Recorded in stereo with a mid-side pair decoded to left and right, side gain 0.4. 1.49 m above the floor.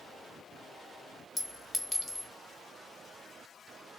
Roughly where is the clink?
Ahead.